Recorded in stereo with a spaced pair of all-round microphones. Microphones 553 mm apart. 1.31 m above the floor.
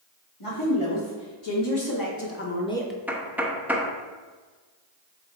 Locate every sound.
0.4 s a woman speaking: 65° left (ahead or behind), 2.5 m; by 3.0 s 5° right (ahead or behind), 1.2 m
3.1 s knocking: 5° right (ahead or behind), 0.8 m